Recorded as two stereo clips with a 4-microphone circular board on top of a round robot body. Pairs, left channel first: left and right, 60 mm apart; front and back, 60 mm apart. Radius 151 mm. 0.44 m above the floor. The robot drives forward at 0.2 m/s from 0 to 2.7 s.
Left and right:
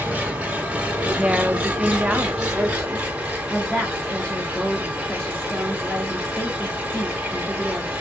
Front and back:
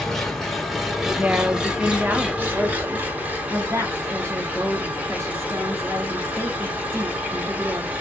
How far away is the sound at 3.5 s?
About 1.1 m.